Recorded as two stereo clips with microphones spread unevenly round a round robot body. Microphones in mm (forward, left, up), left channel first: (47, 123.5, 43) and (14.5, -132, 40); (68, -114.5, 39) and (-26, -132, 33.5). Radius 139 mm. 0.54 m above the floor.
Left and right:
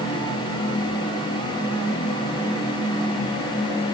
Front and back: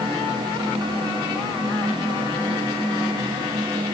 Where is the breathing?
I don't hear breathing.